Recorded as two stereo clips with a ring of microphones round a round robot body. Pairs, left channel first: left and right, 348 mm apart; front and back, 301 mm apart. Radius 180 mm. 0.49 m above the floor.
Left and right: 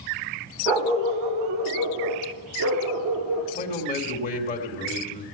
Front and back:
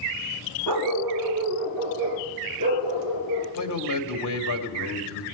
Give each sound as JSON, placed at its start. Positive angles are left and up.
{"t": 0.7, "sound": "a dog barking", "azimuth_deg": -80, "distance_m": 1.3}
{"t": 3.5, "sound": "a man speaking", "azimuth_deg": 25, "distance_m": 2.0}